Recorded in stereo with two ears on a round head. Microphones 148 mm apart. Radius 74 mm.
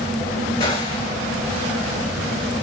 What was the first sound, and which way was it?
A gunshot, 35° left (ahead or behind).